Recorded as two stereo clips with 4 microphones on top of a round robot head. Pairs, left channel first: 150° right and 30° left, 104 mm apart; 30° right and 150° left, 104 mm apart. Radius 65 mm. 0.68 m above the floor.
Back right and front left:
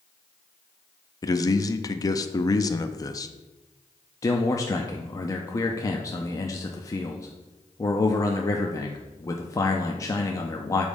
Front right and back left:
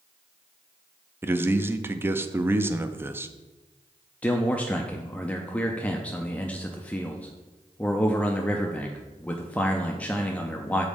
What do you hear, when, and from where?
1.2 s a man speaking: 160° right, 0.6 m
4.2 s a man speaking: 105° right, 0.7 m